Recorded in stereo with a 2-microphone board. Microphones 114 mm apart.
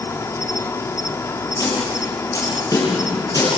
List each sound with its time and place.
0.0 s an insect: 25° left (ahead or behind), 0.9 m
1.6 s a snare drum: 30° left (ahead or behind), 9 m